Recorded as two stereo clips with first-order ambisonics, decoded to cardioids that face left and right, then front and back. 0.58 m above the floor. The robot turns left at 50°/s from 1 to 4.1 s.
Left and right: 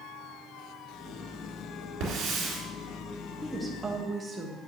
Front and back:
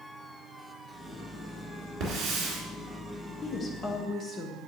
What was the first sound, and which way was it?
A hiss, 140° right.